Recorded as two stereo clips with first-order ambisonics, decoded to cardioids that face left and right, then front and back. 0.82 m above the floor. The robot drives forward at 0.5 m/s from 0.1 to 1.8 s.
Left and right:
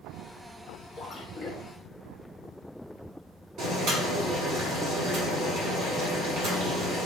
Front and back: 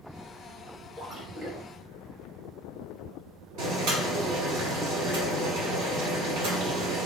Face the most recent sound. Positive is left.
turn(degrees=-140)